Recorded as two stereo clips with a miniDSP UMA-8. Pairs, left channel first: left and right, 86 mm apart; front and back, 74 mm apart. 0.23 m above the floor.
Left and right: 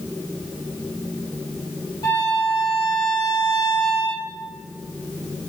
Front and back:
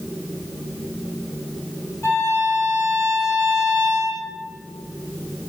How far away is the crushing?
I don't hear crushing.